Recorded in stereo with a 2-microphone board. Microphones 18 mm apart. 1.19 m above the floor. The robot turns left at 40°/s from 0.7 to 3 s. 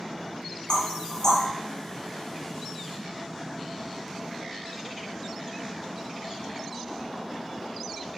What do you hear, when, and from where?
0.7 s knocking: 55° left (ahead or behind), 0.9 m; by 1.4 s 30° left (ahead or behind), 0.9 m